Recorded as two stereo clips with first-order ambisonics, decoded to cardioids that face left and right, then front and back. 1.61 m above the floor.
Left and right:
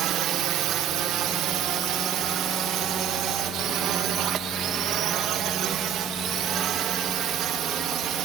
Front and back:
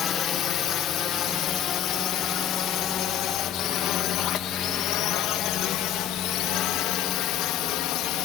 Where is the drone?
50° right; by 8.2 s 35° right.